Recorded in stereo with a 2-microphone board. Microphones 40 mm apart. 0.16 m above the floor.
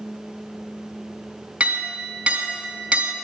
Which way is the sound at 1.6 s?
30° right (ahead or behind).